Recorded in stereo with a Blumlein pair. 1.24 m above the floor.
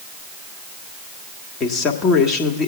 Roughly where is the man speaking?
Ahead left.